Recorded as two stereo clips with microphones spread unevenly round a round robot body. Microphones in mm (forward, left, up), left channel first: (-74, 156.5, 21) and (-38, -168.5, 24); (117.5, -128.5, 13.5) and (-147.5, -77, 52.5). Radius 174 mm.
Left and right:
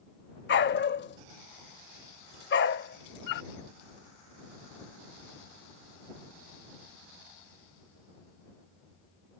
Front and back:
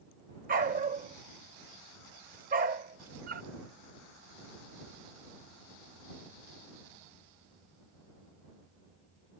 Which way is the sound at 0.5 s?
140° left.